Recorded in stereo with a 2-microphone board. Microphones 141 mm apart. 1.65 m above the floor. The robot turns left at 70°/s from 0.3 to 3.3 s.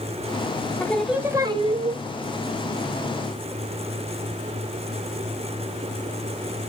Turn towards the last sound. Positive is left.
turn(degrees=-160)